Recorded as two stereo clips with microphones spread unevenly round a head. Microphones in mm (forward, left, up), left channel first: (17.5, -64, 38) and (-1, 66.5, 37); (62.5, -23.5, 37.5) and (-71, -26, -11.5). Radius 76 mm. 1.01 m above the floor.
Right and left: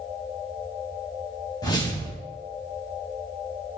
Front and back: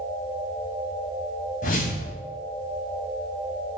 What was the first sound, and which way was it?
A whoosh, 20° right.